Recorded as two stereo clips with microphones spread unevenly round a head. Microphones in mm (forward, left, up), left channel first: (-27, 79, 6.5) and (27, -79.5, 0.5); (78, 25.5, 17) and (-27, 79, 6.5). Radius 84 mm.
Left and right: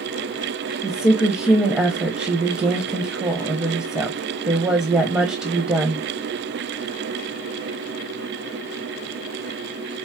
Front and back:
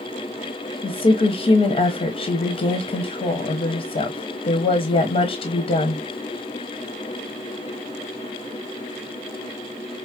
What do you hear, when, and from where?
0.8 s a woman speaking: 10° left, 0.9 m